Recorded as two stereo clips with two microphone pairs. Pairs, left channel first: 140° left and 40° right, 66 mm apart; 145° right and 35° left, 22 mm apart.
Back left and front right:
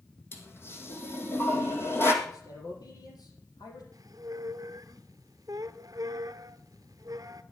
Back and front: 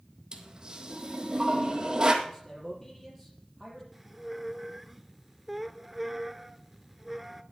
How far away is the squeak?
About 0.6 m.